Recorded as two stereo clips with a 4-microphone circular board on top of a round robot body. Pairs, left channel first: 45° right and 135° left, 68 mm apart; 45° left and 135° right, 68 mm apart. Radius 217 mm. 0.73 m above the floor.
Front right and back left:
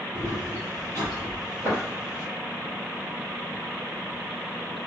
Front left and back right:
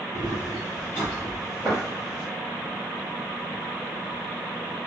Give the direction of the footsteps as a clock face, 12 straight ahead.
9 o'clock.